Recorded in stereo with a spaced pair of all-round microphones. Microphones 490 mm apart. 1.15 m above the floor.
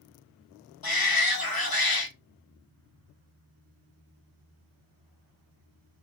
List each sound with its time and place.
0.8 s a shout: 45° left (ahead or behind), 1.0 m